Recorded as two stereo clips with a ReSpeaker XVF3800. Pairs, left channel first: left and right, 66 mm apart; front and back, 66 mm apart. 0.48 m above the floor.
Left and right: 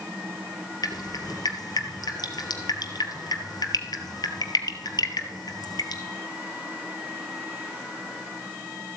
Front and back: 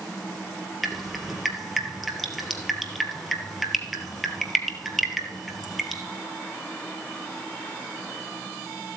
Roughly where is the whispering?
I don't hear whispering.